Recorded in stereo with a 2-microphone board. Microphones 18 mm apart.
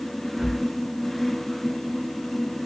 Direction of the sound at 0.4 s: 75° right (ahead or behind).